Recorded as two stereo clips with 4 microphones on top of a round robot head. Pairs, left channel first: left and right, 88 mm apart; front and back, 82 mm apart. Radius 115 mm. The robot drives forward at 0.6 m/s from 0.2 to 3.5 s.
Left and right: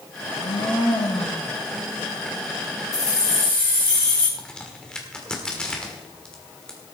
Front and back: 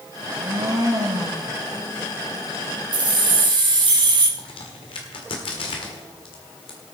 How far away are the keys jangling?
About 2.5 m.